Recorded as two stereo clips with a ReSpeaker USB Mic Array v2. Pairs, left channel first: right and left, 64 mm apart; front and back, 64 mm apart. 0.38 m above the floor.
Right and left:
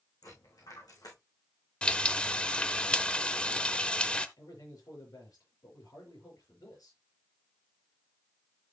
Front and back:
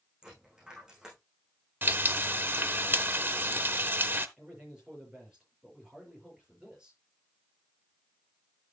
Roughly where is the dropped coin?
Right.